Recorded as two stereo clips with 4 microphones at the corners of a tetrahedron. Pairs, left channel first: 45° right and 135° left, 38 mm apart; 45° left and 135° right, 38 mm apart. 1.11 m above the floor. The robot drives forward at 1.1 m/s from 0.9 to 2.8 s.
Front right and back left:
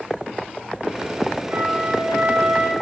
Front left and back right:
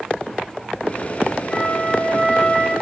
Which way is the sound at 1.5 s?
100° left.